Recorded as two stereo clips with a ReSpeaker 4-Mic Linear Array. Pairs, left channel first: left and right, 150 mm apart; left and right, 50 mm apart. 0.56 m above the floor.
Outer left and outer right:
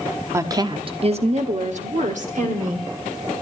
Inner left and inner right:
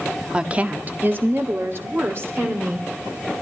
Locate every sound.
0.3 s a woman speaking: 20° right (ahead or behind), 0.7 m; by 2.9 s 55° right (ahead or behind), 1.6 m